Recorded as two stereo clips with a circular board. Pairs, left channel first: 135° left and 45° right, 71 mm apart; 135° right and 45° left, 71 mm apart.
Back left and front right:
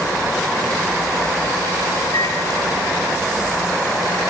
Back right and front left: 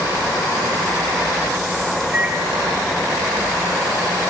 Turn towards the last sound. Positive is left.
turn(degrees=115)